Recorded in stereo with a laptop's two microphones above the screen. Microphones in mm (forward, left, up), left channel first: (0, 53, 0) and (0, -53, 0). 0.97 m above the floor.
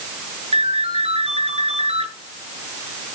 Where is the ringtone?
70° right (ahead or behind), 8.5 m.